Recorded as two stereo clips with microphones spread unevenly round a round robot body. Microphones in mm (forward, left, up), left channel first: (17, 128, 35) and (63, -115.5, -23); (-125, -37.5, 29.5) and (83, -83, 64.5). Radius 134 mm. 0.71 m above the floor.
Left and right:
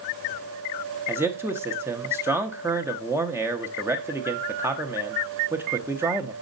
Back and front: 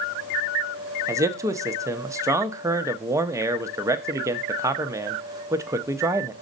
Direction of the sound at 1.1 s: 95° right.